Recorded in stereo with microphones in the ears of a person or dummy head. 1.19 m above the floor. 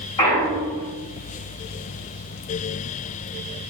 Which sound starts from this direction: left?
A clunk, at 0.2 s.